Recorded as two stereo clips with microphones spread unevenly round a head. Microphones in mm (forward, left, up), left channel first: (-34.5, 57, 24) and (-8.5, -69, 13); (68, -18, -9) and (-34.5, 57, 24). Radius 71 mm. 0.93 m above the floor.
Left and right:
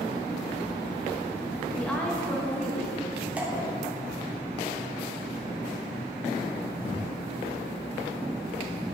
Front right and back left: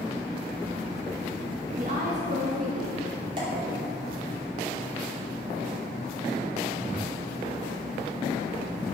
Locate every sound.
1.8 s a woman speaking: 175° right, 1.1 m
3.4 s dripping: 155° right, 1.6 m